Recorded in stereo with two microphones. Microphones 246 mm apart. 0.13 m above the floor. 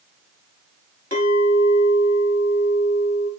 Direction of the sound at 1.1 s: 40° left (ahead or behind).